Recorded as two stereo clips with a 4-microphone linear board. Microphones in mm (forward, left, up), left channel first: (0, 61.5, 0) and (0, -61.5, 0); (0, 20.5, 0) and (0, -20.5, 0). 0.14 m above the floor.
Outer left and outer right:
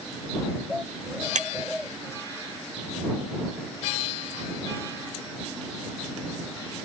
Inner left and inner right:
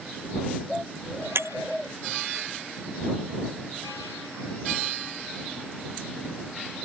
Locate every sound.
1.4 s breaking glass: 75° right (ahead or behind)